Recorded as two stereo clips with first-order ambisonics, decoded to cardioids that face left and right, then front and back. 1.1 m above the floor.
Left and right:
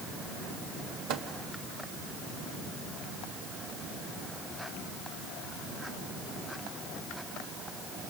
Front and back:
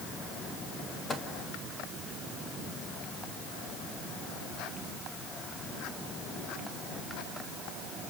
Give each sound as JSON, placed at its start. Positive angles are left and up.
{"t": 1.1, "sound": "a microwave", "azimuth_deg": -70, "distance_m": 1.3}